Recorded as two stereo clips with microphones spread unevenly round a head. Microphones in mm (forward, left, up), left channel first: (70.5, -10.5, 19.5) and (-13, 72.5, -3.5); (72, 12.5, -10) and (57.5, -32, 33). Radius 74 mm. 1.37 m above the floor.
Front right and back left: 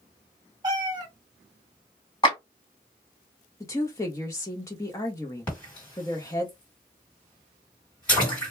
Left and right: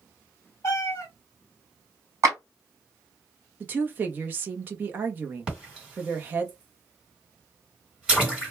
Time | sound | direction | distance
0.6 | a cat meowing | 175° left | 0.8 m
2.2 | a clap | 110° right | 1.6 m
3.6 | a woman speaking | 110° right | 0.6 m
5.5 | a splash | 110° right | 1.8 m